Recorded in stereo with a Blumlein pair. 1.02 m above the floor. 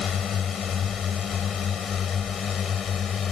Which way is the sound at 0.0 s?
20° left.